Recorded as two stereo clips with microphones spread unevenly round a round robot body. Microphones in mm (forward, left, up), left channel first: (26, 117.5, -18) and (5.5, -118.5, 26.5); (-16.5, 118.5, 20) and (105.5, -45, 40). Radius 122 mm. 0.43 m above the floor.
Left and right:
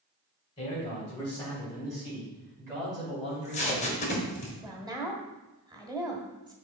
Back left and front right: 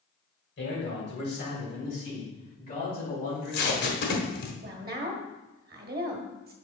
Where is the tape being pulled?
140° left, 1.2 m.